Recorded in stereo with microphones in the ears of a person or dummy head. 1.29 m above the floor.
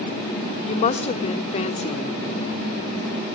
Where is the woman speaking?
35° left (ahead or behind), 0.9 m.